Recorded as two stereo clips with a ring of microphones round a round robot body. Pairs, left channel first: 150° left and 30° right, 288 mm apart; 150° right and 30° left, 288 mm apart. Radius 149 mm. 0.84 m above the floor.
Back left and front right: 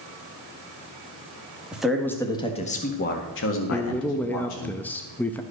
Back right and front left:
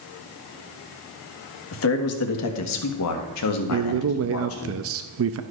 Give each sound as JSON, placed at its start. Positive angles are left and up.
{"t": 1.7, "sound": "a man speaking", "azimuth_deg": -115, "distance_m": 1.6}
{"t": 3.7, "sound": "a man speaking", "azimuth_deg": 65, "distance_m": 0.5}